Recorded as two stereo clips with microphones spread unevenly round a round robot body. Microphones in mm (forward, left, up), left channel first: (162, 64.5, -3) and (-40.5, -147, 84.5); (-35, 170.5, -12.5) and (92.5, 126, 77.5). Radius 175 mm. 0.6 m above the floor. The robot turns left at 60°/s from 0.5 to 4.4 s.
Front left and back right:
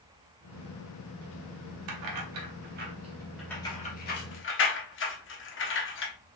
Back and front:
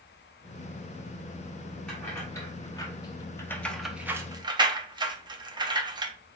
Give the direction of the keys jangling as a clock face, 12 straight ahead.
5 o'clock.